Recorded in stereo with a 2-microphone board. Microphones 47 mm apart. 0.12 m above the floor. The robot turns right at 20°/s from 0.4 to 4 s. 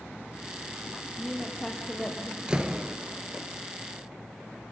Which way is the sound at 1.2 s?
Centre (ahead or behind).